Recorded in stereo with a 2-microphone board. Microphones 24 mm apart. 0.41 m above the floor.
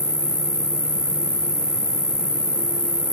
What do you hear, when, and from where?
0.0 s an insect: 20° right (ahead or behind), 0.9 m